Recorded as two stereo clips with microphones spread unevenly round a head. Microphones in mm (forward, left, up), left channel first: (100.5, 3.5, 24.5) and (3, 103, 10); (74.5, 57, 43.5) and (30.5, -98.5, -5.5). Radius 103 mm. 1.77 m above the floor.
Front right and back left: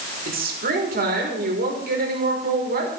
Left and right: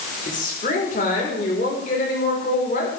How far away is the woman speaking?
About 5 m.